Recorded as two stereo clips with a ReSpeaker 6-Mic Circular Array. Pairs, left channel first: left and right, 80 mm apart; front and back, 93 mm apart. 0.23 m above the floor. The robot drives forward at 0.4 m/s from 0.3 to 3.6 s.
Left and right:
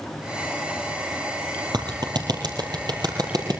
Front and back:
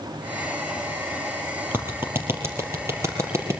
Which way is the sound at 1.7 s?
115° right.